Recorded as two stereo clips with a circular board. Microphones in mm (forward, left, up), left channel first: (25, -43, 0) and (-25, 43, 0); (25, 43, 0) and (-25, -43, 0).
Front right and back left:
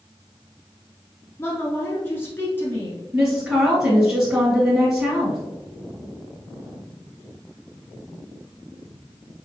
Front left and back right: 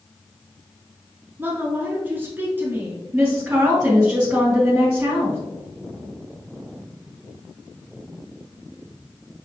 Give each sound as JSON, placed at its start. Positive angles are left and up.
{"t": 1.4, "sound": "a woman speaking", "azimuth_deg": -85, "distance_m": 1.2}
{"t": 3.1, "sound": "a woman speaking", "azimuth_deg": -175, "distance_m": 1.9}